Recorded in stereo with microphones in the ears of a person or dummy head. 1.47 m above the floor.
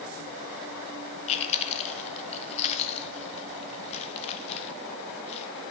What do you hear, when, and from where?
1.3 s chewing: 35° left (ahead or behind), 1.2 m